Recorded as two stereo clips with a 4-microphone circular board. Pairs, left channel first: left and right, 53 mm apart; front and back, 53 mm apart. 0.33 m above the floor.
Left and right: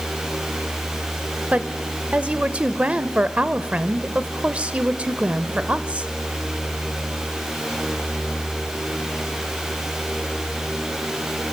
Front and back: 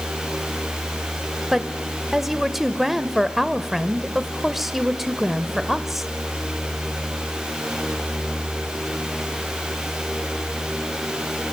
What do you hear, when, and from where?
1.5 s a woman speaking: 100° right, 0.9 m